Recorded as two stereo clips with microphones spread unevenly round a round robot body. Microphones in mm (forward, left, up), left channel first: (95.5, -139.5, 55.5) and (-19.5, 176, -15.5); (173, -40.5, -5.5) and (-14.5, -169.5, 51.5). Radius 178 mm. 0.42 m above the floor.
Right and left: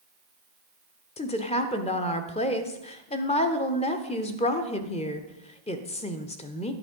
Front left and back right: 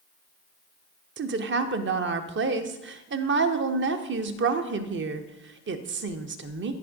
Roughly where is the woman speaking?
Behind right.